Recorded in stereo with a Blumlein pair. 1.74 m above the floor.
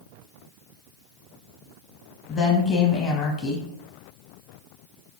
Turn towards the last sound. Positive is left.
turn(degrees=20)